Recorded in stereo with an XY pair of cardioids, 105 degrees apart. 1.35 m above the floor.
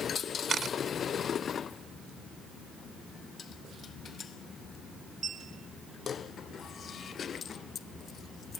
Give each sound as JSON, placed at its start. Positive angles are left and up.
{"t": 0.5, "sound": "a camera shutter", "azimuth_deg": -50}